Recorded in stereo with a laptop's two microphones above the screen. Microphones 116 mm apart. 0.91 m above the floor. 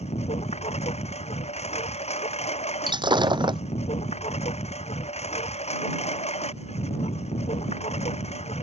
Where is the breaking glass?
40° right (ahead or behind).